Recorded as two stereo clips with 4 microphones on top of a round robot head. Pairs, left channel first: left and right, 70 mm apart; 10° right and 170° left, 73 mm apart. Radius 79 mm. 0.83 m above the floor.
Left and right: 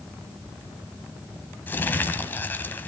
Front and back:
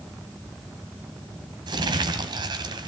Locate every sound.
1.7 s crumpling: 150° left, 1.9 m